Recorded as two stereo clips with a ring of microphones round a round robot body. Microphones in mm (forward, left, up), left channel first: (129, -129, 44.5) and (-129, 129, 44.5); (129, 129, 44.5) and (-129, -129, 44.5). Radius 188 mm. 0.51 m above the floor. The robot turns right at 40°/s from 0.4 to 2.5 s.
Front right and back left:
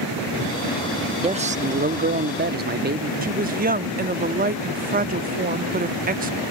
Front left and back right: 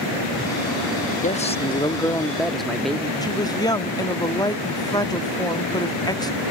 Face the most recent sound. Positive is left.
turn(degrees=110)